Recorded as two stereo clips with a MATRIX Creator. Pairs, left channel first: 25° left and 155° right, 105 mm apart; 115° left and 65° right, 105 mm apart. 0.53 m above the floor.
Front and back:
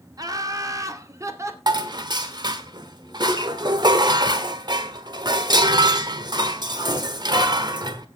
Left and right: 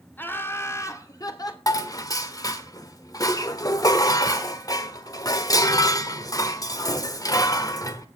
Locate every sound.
0.2 s laughter: 175° left, 1.7 m; by 1.6 s 150° left, 2.0 m
1.7 s dishes clattering: 160° left, 1.2 m